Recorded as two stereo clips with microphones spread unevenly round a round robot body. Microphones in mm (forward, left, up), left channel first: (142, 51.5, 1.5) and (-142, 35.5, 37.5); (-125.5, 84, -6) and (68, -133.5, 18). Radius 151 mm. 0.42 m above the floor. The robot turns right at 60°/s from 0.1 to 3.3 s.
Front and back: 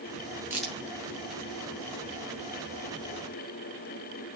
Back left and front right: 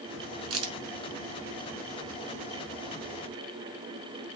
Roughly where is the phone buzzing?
I don't hear a phone buzzing.